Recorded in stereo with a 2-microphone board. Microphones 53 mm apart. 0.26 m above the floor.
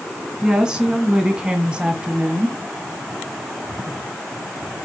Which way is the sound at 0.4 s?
15° right (ahead or behind).